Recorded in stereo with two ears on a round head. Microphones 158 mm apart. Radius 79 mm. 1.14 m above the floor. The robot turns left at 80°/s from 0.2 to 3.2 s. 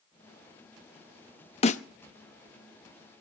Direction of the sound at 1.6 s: 35° left (ahead or behind).